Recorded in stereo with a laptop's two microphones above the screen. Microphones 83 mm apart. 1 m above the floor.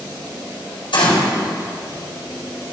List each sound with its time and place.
0.9 s a gunshot: 80° left, 4 m